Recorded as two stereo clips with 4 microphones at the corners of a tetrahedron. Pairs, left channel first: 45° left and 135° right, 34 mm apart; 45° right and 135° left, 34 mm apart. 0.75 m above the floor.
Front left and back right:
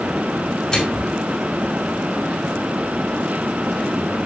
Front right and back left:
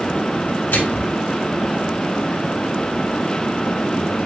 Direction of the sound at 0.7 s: 30° right.